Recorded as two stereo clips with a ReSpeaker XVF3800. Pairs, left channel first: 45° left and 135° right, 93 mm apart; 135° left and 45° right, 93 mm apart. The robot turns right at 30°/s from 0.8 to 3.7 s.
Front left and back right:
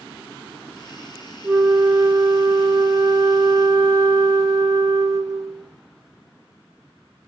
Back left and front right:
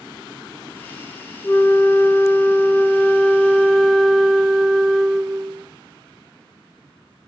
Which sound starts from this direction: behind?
A flute, at 1.4 s.